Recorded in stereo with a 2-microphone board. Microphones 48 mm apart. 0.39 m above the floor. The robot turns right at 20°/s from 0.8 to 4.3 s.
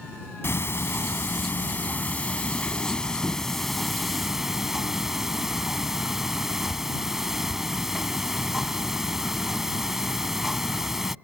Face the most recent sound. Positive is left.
turn(degrees=-170)